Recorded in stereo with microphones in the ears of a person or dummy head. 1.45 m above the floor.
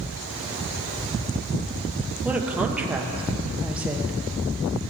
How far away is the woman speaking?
About 0.8 m.